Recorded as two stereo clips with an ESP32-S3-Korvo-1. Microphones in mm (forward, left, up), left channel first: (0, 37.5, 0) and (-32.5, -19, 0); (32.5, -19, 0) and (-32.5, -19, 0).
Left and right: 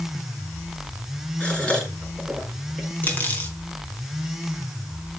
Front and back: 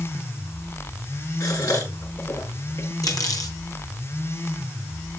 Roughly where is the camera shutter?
No camera shutter in this recording.